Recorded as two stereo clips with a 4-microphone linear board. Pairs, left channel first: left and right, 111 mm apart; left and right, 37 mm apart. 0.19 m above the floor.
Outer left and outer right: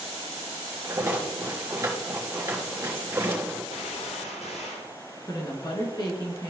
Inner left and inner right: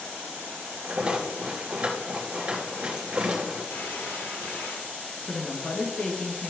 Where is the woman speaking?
40° left (ahead or behind), 2 m.